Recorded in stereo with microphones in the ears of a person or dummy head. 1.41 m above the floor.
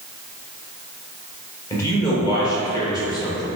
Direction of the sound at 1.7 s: 20° left (ahead or behind).